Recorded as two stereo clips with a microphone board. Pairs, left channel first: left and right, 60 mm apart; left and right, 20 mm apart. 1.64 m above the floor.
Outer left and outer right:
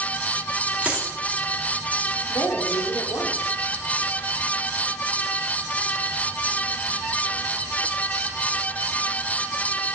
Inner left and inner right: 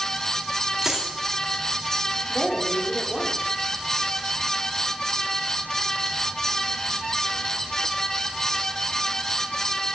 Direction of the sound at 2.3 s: 70° left (ahead or behind).